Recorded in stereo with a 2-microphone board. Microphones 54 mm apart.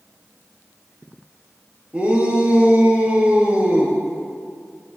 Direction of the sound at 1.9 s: 20° right (ahead or behind).